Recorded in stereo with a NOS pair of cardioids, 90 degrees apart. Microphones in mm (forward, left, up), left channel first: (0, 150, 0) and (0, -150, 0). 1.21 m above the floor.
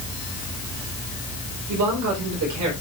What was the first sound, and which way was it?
A man speaking, 70° right.